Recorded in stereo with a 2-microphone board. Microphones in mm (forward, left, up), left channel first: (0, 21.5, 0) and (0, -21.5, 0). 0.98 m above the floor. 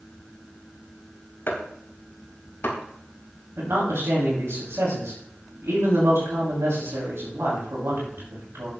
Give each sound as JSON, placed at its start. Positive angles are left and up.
{"t": 1.5, "sound": "chopping", "side_deg": 55, "distance_m": 4.0}
{"t": 3.6, "sound": "a man speaking", "side_deg": -85, "distance_m": 5.5}